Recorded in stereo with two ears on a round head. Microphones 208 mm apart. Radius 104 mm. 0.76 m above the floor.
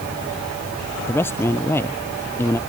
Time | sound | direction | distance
1.1 | a man speaking | 10° left (ahead or behind) | ?